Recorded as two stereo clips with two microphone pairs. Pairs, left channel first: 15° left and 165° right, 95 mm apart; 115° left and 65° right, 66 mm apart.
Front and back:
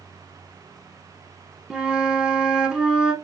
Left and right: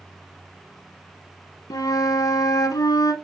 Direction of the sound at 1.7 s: 115° left.